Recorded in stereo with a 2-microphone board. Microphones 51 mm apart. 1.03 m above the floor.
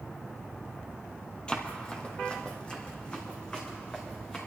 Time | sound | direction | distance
1.5 | running footsteps | 15° left (ahead or behind) | 1.5 m